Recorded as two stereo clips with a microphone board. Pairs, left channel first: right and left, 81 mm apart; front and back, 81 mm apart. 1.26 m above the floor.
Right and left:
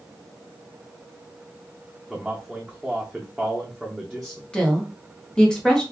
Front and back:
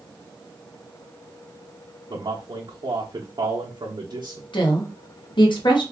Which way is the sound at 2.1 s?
Straight behind.